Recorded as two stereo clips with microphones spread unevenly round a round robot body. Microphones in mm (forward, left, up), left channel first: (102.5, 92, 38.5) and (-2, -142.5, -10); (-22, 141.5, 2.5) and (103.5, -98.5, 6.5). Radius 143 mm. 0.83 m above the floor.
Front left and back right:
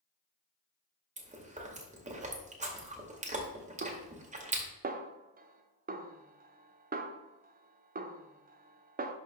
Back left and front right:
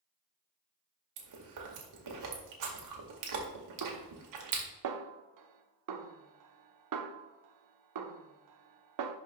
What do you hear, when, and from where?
1.2 s chewing: 50° right, 2 m
3.8 s a snare drum: 55° right, 0.8 m